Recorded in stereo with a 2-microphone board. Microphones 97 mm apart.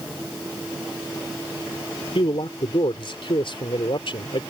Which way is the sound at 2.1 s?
60° left (ahead or behind).